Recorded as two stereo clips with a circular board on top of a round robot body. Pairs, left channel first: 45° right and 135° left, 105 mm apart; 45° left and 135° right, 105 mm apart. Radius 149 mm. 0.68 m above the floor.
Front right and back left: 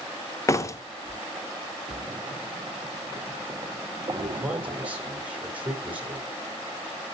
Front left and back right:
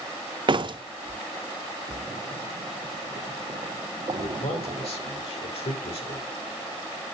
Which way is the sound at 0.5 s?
100° right.